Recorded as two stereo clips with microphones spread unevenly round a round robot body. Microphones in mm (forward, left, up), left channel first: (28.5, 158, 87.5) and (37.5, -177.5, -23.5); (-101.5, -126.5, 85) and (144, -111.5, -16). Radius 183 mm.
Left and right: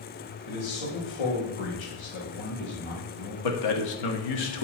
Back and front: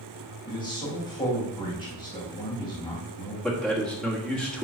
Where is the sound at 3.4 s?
75° left, 1.8 m.